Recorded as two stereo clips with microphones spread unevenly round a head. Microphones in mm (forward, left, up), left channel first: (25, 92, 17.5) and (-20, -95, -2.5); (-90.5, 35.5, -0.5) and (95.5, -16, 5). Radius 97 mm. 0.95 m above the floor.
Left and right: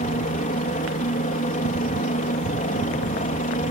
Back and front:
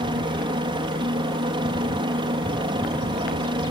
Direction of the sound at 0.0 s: 40° left.